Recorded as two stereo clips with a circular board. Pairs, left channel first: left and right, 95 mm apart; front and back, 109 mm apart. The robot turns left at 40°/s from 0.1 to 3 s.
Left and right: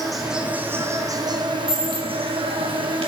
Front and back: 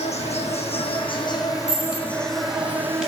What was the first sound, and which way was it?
An insect, straight ahead.